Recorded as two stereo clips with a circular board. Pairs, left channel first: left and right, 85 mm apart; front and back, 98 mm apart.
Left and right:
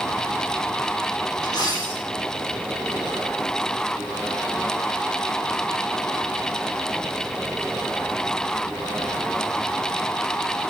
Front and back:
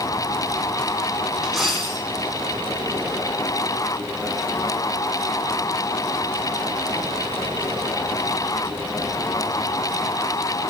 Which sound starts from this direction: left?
A dropped coin, at 1.4 s.